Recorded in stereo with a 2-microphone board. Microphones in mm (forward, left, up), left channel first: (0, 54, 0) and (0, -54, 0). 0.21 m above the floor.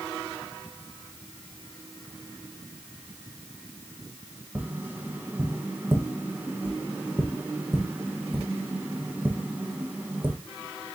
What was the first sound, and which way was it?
Tapping, 15° right (ahead or behind).